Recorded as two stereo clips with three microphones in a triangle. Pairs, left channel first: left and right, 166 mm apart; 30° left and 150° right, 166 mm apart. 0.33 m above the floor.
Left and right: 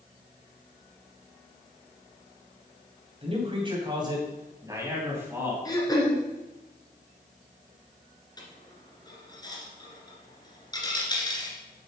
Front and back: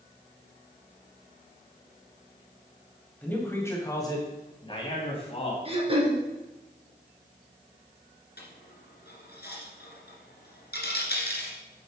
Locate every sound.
3.2 s a man speaking: 50° right, 2.5 m; by 5.5 s 15° right, 3 m
5.7 s throat clearing: 155° left, 2 m
8.4 s a dropped coin: 25° left, 1.8 m